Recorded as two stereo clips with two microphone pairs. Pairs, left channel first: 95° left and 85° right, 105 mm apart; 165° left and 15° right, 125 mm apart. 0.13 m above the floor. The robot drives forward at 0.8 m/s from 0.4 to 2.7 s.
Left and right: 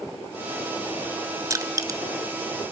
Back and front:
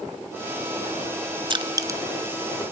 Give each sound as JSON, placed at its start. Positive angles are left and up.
{"t": 1.5, "sound": "crushing", "azimuth_deg": -40, "distance_m": 1.2}